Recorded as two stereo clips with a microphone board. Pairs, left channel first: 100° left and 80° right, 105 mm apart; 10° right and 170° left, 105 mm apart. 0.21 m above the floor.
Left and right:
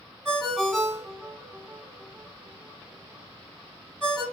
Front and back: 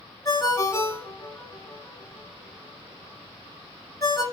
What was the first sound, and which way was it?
A ringtone, 15° left.